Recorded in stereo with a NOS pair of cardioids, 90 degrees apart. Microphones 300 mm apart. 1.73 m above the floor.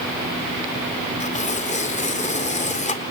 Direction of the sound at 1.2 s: 25° left.